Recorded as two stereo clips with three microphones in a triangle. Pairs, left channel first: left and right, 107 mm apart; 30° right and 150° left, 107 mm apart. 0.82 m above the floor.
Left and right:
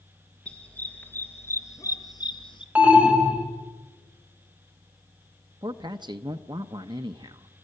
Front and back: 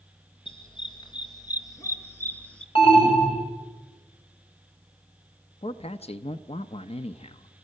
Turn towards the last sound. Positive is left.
turn(degrees=-45)